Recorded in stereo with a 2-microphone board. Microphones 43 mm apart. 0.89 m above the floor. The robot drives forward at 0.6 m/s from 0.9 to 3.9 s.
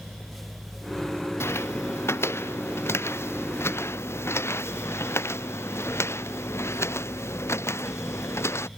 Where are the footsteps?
75° left (ahead or behind); by 8.7 s 85° left.